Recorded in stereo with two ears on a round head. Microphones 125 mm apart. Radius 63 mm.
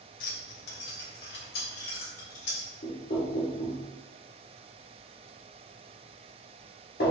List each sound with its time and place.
0.2 s keys jangling: 60° left (ahead or behind), 0.7 m; by 2.7 s 70° left (ahead or behind), 2.0 m
2.8 s knocking: 70° left (ahead or behind), 0.9 m